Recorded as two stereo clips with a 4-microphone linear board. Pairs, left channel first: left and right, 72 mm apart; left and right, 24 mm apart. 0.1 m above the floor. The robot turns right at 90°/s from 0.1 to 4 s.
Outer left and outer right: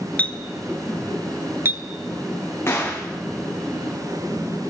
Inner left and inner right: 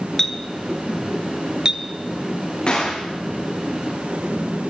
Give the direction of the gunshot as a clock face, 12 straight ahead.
7 o'clock.